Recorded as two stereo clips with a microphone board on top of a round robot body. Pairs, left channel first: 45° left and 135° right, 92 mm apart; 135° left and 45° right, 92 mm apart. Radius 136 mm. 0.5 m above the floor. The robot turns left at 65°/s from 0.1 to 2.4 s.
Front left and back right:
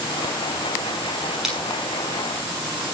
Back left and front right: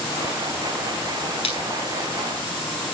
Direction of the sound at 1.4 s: 140° left.